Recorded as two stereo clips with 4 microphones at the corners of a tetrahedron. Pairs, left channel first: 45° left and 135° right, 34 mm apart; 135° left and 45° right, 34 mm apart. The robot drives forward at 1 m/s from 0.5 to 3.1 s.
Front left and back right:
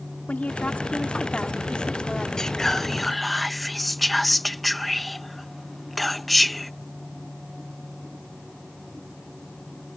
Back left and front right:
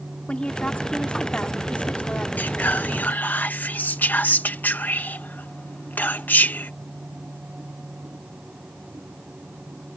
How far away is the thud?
I don't hear a thud.